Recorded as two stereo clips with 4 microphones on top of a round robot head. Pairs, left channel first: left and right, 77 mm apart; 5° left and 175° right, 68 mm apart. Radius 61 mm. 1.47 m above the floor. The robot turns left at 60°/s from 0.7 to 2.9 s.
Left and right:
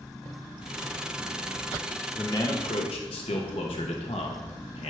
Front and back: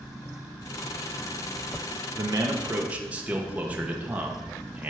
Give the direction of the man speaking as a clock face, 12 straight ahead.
7 o'clock.